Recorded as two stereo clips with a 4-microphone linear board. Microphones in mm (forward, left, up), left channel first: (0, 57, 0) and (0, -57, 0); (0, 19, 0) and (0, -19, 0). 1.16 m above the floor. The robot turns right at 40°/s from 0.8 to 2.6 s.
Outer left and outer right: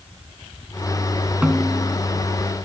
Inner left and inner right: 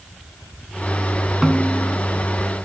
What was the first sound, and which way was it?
A snare drum, 10° right (ahead or behind).